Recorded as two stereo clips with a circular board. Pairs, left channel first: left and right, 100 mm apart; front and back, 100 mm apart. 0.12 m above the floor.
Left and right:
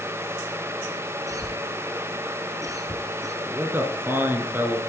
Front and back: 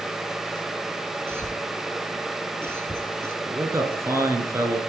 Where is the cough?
125° right, 1.4 m.